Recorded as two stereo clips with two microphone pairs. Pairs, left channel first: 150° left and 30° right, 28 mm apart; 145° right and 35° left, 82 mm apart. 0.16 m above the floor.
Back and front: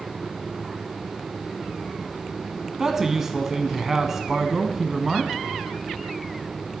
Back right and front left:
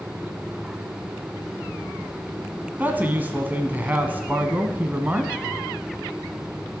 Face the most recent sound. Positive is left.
turn(degrees=25)